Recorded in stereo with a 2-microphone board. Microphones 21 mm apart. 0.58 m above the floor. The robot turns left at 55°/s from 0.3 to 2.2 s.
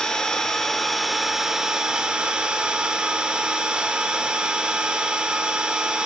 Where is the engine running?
45° left, 0.8 m; by 6.1 s 60° right, 0.8 m.